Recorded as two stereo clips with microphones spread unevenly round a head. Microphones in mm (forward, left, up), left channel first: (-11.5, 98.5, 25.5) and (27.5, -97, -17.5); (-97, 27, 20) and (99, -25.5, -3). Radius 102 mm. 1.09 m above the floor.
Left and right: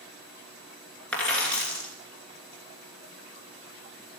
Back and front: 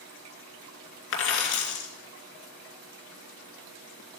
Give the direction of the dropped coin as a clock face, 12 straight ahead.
6 o'clock.